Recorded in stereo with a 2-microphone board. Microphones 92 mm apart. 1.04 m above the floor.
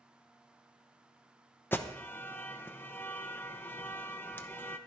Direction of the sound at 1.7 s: 20° left (ahead or behind).